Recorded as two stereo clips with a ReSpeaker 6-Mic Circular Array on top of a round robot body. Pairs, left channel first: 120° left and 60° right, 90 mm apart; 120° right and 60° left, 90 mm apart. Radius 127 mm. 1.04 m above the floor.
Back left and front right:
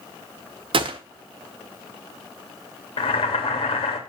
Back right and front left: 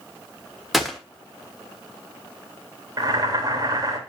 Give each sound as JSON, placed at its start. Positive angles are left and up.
{"t": 0.7, "sound": "a gunshot", "azimuth_deg": -30, "distance_m": 1.3}
{"t": 3.0, "sound": "boiling", "azimuth_deg": 105, "distance_m": 2.5}